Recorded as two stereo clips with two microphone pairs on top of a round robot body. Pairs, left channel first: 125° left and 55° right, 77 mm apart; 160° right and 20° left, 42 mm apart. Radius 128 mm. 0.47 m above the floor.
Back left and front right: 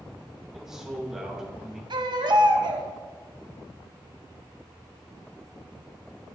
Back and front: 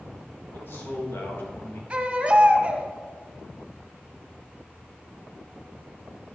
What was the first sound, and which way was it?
A man speaking, 140° right.